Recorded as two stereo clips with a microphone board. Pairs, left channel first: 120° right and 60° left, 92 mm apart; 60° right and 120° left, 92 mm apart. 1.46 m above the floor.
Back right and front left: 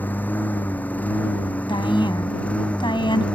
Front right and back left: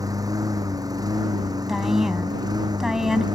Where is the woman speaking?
155° right.